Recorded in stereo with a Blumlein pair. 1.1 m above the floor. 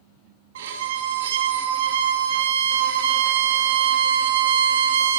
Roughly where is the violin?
Ahead right.